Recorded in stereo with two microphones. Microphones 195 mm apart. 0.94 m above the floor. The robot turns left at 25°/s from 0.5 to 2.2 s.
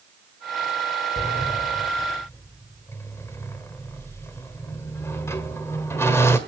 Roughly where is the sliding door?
Left.